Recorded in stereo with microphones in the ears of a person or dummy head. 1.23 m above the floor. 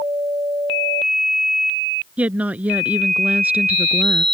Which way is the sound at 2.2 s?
5° right (ahead or behind).